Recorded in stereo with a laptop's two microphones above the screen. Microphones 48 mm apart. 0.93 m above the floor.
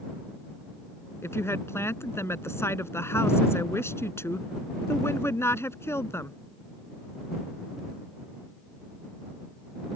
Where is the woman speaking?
60° left (ahead or behind).